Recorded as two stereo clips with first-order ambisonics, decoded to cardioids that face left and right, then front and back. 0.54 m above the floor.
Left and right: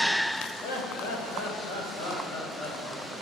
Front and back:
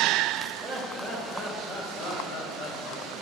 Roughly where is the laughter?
Left.